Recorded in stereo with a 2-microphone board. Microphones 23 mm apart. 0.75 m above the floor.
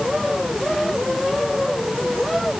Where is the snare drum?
I don't hear a snare drum.